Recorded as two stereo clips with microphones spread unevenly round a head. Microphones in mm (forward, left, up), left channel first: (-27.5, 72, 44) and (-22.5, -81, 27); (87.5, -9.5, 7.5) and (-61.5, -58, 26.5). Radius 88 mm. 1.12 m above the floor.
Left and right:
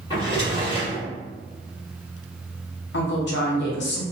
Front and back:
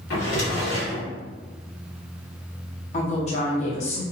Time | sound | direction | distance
0.1 | a drawer | 30° left | 1.4 m
2.9 | a woman speaking | 70° left | 0.7 m